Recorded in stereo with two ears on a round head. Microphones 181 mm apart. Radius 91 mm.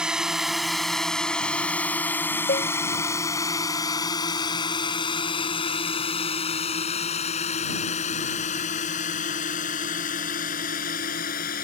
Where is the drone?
5° right (ahead or behind); by 11.6 s 45° left (ahead or behind).